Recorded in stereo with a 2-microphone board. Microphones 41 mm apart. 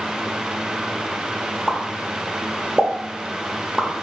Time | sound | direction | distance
1.7 | a pop | 20° right (ahead or behind) | 0.8 m